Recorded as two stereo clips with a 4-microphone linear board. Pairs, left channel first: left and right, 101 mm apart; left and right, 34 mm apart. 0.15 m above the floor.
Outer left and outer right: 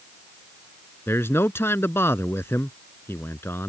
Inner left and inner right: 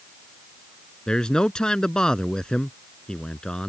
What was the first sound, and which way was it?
A man speaking, 25° left (ahead or behind).